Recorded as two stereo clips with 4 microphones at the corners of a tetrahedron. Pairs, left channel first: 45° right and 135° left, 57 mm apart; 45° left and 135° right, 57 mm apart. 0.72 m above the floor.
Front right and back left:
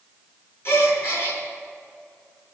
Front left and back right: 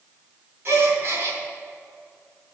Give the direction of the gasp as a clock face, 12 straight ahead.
3 o'clock.